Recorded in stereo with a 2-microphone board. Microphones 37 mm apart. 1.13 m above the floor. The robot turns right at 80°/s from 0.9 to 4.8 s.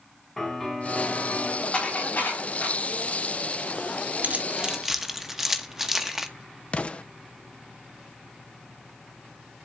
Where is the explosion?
35° left (ahead or behind), 0.6 m.